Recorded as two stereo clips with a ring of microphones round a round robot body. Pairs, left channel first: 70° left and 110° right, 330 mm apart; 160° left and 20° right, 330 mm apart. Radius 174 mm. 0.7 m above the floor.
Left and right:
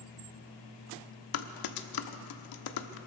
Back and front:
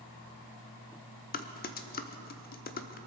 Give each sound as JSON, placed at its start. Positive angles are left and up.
{"t": 1.3, "sound": "typing on a keyboard", "azimuth_deg": 95, "distance_m": 0.9}